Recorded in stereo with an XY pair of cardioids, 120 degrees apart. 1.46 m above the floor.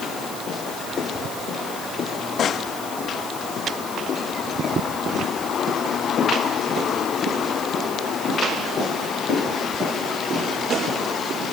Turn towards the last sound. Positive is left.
No sound to turn to.